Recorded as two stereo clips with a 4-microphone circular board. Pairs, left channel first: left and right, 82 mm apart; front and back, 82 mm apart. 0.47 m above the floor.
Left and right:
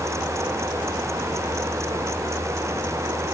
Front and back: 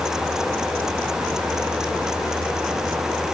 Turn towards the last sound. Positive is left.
No sound to turn to.